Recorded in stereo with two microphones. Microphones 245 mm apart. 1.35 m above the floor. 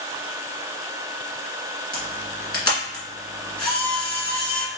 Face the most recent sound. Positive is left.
turn(degrees=20)  # may be behind; listen again after turning